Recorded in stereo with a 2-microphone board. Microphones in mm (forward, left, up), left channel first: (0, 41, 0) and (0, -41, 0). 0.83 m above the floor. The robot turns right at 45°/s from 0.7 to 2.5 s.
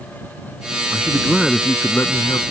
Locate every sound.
0.9 s a man speaking: 20° right; by 2.4 s 50° left